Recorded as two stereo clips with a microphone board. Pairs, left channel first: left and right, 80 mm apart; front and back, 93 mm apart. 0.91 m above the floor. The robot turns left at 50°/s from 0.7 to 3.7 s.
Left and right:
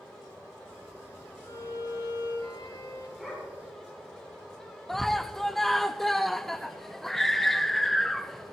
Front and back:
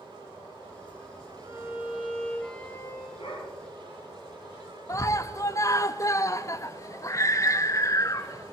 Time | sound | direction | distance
1.4 | a violin | 130° left | 4 m
3.2 | a dog barking | straight ahead | 5.5 m
4.9 | a scream | 5° left | 0.6 m